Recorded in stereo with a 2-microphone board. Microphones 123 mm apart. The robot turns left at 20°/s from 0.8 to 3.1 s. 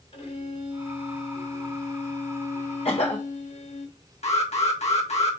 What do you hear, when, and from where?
0.1 s a violin: 130° left, 3.5 m; by 3.9 s 80° left, 3.5 m
2.9 s a cough: 60° left (ahead or behind), 1.2 m; by 3.2 s 65° left (ahead or behind), 1.2 m
4.2 s an alarm: 65° left (ahead or behind), 1.9 m